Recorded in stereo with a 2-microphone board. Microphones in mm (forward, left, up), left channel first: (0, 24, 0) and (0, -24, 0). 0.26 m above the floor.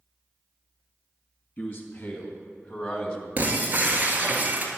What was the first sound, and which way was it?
A man speaking, 35° left (ahead or behind).